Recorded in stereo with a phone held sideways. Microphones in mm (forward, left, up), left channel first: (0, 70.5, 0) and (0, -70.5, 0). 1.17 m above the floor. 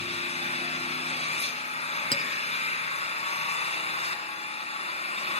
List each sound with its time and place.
0.0 s an engine running: 50° left (ahead or behind), 3 m
2.1 s a clink: 35° left (ahead or behind), 1.4 m